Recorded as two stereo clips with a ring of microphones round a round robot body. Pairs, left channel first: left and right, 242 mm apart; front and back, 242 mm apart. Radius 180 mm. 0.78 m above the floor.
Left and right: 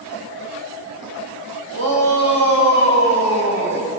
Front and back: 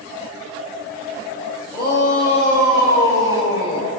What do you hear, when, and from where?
1.7 s a shout: 75° right, 5 m